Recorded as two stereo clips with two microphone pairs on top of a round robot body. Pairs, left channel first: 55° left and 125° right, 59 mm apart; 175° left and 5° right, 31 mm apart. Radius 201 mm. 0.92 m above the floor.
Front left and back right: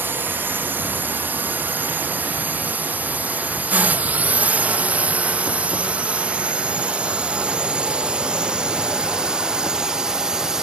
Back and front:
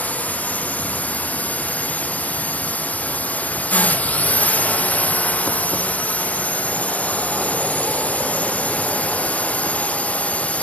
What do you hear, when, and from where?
0.0 s a drone: 165° right; by 10.6 s 165° left